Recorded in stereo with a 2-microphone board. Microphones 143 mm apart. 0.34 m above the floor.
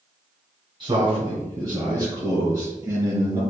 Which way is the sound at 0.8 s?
40° right (ahead or behind).